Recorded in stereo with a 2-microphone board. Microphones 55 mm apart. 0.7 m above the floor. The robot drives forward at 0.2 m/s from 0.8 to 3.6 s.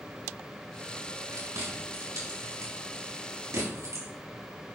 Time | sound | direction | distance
1.3 | chewing | 75° right (ahead or behind) | 4.5 m